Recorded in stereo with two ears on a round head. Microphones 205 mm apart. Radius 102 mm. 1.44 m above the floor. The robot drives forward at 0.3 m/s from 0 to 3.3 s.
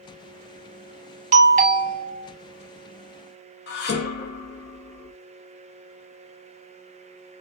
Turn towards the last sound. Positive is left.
turn(degrees=45)  # may be behind; listen again after turning